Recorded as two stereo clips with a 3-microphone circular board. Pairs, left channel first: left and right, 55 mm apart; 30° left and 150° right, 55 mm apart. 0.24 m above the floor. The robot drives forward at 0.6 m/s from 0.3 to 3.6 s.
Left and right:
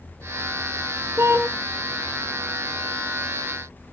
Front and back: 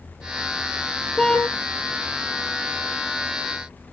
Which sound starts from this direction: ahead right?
A car horn, at 1.2 s.